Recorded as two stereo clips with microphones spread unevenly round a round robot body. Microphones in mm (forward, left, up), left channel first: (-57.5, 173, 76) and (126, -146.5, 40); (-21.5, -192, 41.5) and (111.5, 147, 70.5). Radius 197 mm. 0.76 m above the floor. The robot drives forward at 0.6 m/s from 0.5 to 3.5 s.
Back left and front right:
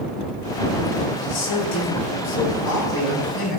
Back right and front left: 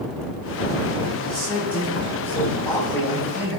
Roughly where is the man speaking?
Behind.